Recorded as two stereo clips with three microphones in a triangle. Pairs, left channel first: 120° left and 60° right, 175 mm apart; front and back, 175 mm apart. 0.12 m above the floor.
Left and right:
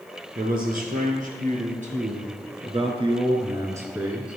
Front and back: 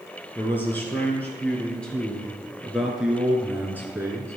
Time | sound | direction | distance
0.3 | a man speaking | 75° right | 3 m